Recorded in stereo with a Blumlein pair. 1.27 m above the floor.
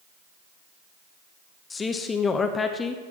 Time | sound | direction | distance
1.7 | a man speaking | 15° left | 0.8 m